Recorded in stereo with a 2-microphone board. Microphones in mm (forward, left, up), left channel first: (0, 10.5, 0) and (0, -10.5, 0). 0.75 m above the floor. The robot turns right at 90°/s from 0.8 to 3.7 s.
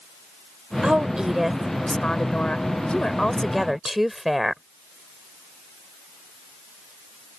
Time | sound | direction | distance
0.8 | a woman speaking | 65° right | ?